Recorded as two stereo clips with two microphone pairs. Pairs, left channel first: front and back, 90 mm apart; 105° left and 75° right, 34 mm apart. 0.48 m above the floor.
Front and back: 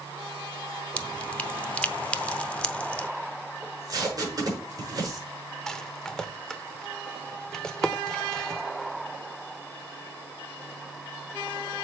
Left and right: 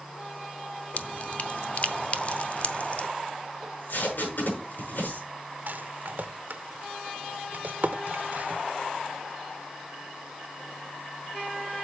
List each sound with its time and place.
1.0 s dripping: 75° left, 0.6 m
3.6 s tape being pulled: 135° left, 5.5 m
5.7 s a rattle: 80° right, 0.7 m